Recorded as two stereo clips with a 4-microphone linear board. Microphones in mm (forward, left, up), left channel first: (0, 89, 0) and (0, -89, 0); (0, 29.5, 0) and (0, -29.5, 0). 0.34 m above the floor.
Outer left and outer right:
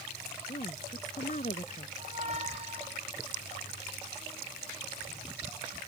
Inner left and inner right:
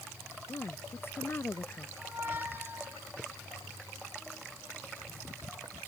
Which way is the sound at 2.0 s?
40° right (ahead or behind).